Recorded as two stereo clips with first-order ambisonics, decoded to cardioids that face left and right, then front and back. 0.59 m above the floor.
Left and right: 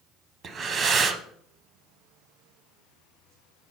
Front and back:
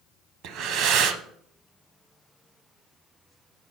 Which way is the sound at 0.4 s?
150° right.